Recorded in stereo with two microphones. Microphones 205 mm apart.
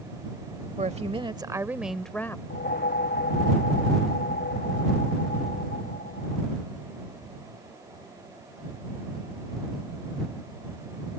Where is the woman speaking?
35° right (ahead or behind); by 2.4 s 15° left (ahead or behind).